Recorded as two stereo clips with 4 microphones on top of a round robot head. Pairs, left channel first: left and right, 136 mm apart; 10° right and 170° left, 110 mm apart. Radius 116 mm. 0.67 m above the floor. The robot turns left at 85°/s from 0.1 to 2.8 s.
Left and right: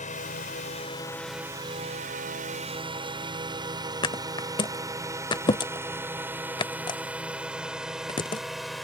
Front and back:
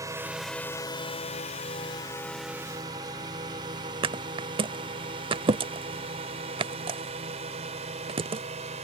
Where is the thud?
140° left.